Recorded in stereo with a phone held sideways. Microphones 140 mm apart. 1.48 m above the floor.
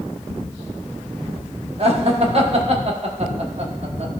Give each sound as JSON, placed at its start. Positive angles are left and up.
{"t": 1.8, "sound": "laughter", "side_deg": -45, "distance_m": 1.2}